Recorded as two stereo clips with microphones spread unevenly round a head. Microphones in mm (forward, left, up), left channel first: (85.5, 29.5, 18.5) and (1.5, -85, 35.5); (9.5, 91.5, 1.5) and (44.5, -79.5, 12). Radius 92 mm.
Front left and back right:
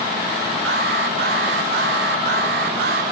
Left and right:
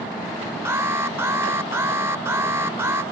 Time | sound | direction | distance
0.7 | an alarm | 155° right | ?